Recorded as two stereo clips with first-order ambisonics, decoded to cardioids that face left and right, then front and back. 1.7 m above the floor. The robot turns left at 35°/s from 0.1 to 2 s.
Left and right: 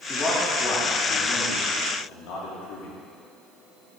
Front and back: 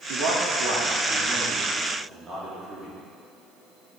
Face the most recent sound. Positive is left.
turn(degrees=105)